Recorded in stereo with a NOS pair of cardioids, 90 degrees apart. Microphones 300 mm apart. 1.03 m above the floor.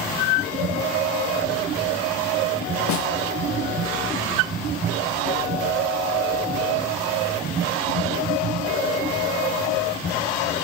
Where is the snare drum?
65° left, 1.4 m.